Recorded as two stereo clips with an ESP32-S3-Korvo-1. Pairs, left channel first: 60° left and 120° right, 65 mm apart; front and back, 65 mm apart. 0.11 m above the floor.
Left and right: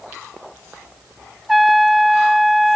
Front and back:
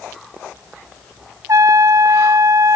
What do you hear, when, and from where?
1.5 s a trumpet: 150° left